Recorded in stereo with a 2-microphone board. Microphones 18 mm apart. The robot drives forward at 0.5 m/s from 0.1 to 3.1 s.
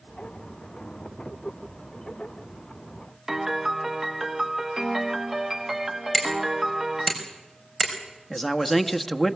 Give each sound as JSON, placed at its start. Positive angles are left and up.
{"t": 3.3, "sound": "a piano", "side_deg": -15, "distance_m": 0.9}
{"t": 6.1, "sound": "hammering", "side_deg": 10, "distance_m": 4.5}
{"t": 8.3, "sound": "a man speaking", "side_deg": 10, "distance_m": 1.2}